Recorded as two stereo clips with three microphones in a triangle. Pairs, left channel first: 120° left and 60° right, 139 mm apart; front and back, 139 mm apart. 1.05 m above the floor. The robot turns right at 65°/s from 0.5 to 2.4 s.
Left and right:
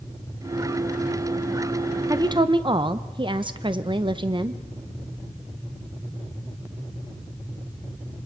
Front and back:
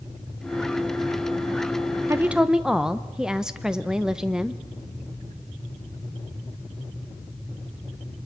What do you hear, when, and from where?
2.1 s a woman speaking: 115° right, 0.8 m; by 4.6 s 95° right, 0.8 m